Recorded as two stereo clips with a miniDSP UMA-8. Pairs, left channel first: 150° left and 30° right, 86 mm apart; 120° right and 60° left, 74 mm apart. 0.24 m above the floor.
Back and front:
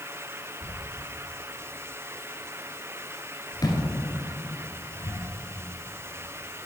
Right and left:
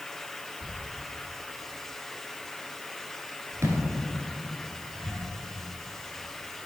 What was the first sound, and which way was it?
A thud, 110° left.